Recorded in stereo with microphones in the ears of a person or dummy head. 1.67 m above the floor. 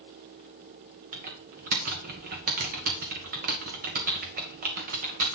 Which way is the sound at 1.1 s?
50° right (ahead or behind).